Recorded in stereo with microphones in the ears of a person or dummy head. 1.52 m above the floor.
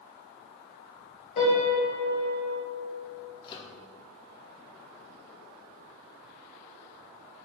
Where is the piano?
40° left (ahead or behind), 2 m.